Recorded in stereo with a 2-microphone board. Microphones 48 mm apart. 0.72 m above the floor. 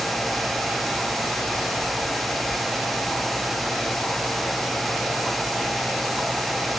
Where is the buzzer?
I don't hear a buzzer.